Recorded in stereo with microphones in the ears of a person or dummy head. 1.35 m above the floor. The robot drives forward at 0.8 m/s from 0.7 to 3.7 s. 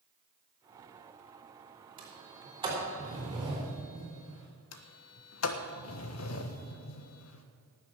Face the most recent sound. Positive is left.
turn(degrees=80)